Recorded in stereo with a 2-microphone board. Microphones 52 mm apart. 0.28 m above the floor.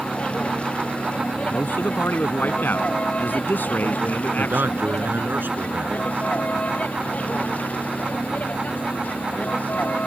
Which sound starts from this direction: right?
A man speaking, at 4.4 s.